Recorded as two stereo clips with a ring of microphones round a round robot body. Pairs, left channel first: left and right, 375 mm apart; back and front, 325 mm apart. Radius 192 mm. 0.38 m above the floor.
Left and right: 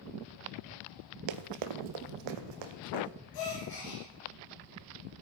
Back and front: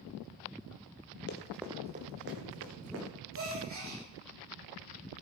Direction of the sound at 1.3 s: 120° right.